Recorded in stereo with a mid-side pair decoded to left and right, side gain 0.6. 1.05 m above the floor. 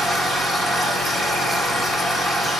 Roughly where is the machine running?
Ahead.